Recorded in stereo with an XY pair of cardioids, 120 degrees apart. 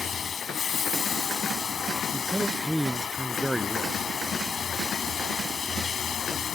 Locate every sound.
0.0 s running water: 40° left
2.1 s a man speaking: 5° right